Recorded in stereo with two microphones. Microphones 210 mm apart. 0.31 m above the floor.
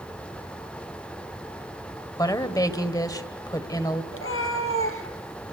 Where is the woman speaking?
15° left (ahead or behind), 1.5 m.